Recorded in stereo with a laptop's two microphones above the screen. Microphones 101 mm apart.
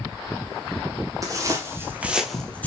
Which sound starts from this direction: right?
Footsteps, at 1.2 s.